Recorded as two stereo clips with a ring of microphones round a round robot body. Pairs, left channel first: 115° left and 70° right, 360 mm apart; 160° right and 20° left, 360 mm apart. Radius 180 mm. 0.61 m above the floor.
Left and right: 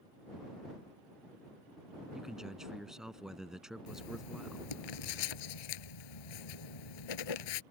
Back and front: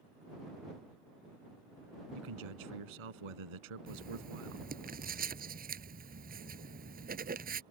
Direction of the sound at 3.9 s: 90° left.